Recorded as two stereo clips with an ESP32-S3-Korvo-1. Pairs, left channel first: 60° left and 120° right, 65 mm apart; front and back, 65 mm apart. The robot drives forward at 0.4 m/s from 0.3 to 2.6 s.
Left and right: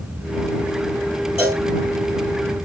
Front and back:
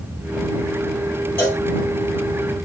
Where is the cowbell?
65° right, 2.5 m; by 1.6 s 70° right, 2.5 m.